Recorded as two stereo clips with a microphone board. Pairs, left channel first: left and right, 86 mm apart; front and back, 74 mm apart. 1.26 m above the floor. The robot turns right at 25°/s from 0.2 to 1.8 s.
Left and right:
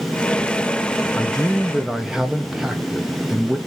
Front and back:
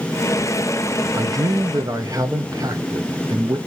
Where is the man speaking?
170° left, 0.8 m; by 3.6 s 175° right, 0.8 m.